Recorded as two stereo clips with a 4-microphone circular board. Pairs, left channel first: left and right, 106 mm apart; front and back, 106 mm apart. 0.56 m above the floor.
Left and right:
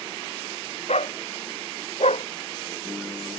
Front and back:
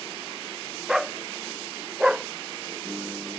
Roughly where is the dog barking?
Left.